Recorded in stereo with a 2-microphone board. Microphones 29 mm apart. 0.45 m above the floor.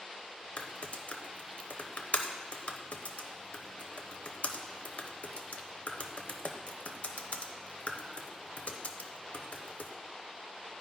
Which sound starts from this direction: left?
Typing on a keyboard, at 0.6 s.